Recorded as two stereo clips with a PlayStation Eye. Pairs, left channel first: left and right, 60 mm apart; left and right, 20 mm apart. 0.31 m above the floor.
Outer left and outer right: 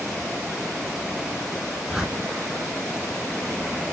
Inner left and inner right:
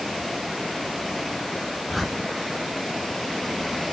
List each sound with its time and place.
1.9 s a whoosh: 10° right (ahead or behind), 3.5 m